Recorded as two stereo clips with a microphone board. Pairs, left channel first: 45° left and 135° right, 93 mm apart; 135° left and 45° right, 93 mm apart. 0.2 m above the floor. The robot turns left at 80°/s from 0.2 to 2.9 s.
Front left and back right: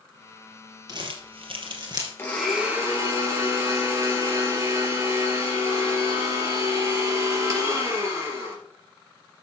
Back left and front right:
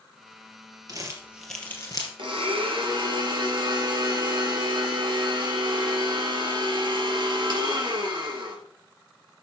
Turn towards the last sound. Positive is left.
turn(degrees=-80)